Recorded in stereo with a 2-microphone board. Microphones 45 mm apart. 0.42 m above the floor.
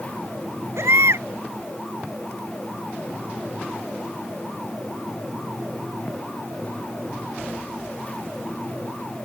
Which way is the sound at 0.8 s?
75° right (ahead or behind).